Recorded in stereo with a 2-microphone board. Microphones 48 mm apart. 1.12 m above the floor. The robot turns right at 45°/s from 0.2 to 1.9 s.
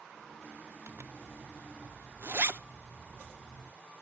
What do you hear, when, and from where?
0.9 s a zipper: 55° right (ahead or behind), 0.8 m; by 3.7 s 50° right (ahead or behind), 0.8 m